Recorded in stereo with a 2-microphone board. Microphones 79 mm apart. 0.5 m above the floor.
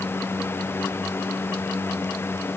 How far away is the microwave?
No microwave in this recording.